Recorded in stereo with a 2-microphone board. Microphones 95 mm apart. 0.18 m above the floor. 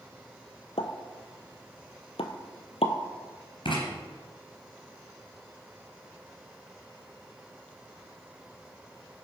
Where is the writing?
60° left (ahead or behind), 3 m.